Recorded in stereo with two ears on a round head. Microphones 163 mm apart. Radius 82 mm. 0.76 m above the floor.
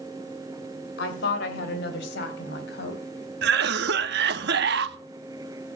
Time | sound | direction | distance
1.0 | a woman speaking | 60° left (ahead or behind) | 3 m
3.4 | a cough | 60° right (ahead or behind) | 1.1 m